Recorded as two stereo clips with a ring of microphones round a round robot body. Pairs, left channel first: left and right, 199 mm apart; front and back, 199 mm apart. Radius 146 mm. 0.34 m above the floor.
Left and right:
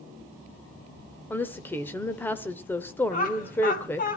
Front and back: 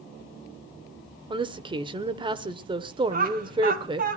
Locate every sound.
1.3 s a woman speaking: 155° left, 0.9 m
3.1 s laughter: 140° left, 2.5 m